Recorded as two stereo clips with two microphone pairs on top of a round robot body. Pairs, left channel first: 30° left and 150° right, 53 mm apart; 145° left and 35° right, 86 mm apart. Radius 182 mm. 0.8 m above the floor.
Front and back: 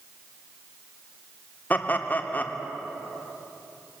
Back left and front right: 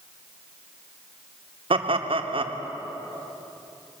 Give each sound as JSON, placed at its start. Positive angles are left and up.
{"t": 1.7, "sound": "laughter", "azimuth_deg": -30, "distance_m": 2.0}